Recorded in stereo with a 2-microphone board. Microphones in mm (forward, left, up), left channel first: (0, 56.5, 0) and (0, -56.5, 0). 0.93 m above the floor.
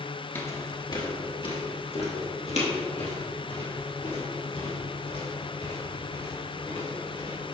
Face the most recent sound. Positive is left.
turn(degrees=80)